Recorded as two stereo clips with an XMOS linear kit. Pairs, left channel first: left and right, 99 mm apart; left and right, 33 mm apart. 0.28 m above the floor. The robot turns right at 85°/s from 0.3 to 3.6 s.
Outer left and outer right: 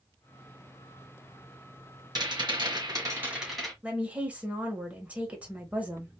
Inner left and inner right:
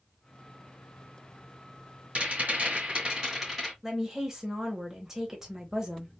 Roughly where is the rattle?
Behind right.